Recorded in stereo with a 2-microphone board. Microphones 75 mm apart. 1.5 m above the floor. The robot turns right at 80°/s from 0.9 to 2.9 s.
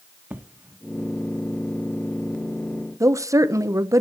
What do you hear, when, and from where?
0.3 s an explosion: 25° right (ahead or behind), 1.3 m
3.0 s a woman speaking: 45° right (ahead or behind), 0.9 m